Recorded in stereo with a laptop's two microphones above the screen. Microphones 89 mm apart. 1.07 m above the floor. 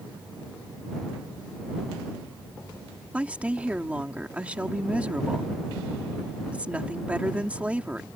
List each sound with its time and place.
3.1 s a woman speaking: 15° right (ahead or behind)